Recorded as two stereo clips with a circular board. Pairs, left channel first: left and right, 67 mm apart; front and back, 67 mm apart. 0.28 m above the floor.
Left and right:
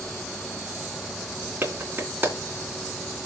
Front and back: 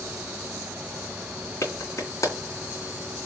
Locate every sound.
1.6 s a clap: 35° right, 3 m